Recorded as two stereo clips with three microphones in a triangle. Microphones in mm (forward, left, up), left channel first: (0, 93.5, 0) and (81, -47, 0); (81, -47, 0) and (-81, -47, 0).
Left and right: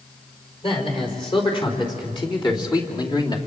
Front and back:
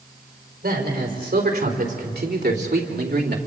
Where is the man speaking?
175° left, 4.5 m; by 3.4 s 175° right, 2.5 m.